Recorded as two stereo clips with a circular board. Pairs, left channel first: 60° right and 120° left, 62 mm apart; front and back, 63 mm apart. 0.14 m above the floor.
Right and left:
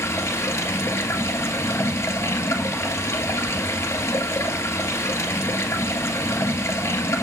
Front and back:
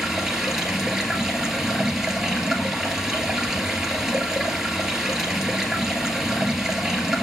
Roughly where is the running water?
Right.